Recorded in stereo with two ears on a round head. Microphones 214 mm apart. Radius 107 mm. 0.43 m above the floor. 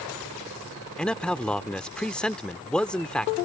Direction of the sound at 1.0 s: 5° left (ahead or behind).